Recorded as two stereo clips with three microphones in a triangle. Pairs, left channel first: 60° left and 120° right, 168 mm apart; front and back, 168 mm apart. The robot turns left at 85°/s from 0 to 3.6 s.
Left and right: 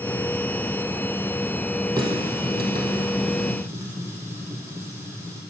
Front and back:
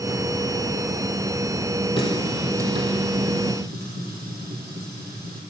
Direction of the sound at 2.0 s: 55° right.